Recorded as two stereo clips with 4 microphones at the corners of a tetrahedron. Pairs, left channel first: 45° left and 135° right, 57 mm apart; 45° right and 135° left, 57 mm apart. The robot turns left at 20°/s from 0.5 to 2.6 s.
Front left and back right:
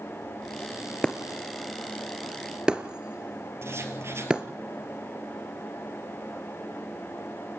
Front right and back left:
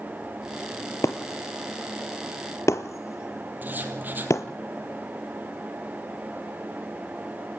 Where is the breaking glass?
30° right, 1.4 m; by 4.4 s 60° right, 1.4 m.